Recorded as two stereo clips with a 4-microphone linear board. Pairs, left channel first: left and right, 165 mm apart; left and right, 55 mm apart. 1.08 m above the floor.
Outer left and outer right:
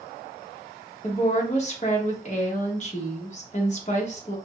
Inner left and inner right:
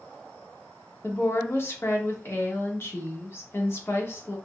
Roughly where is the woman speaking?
Left.